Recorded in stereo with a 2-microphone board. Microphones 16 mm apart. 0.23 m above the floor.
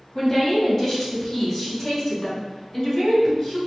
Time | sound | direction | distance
0.1 | a woman speaking | 15° left (ahead or behind) | 1.6 m